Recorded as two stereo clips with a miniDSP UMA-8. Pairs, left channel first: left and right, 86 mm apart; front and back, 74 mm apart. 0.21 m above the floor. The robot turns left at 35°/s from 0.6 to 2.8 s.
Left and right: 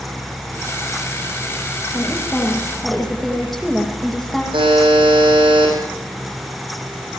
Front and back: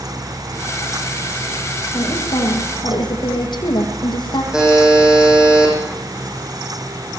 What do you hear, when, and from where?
1.9 s a woman speaking: 30° left, 9.5 m; by 4.4 s straight ahead, 9.5 m
4.5 s a buzzer: 100° right, 9.5 m